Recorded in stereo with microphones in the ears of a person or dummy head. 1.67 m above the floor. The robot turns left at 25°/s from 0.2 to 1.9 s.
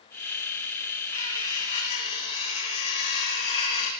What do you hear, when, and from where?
1.1 s cutlery clinking: 30° left (ahead or behind), 1.8 m; by 3.9 s 45° left (ahead or behind), 1.8 m